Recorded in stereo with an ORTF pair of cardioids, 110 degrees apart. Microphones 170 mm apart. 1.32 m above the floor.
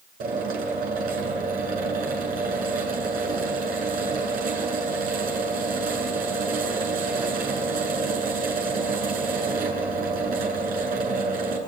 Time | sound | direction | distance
0.2 | a drill | 65° right | 8.5 m